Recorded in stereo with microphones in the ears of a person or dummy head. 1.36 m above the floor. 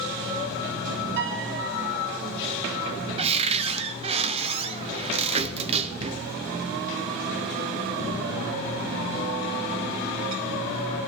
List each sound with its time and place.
1.2 s a piano: 60° right (ahead or behind), 3 m
3.2 s a cupboard door: 35° right (ahead or behind), 0.6 m